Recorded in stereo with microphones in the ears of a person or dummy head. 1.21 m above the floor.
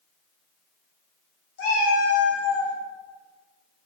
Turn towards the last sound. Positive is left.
turn(degrees=35)  # may be behind; listen again after turning